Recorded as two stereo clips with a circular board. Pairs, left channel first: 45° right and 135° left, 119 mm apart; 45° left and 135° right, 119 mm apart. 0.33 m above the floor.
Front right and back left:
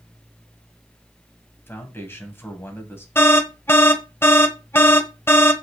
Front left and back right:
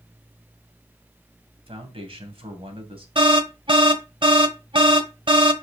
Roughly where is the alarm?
Right.